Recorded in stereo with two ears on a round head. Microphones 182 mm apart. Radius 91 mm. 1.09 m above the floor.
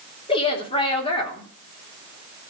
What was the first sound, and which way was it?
A woman speaking, 25° left (ahead or behind).